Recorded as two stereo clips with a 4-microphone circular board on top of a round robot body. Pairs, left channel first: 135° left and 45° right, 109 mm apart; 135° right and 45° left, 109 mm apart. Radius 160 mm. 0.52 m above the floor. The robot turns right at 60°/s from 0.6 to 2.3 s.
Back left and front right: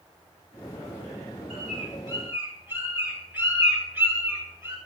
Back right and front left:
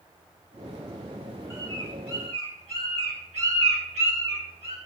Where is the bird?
25° right, 3 m; by 4.8 s 25° left, 3 m.